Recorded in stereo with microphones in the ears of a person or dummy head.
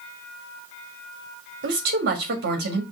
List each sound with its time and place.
1.6 s a woman speaking: 55° right (ahead or behind), 1.4 m